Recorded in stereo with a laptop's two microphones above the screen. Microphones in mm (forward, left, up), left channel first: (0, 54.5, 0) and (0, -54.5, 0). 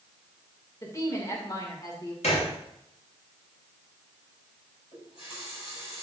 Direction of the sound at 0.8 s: 30° left (ahead or behind).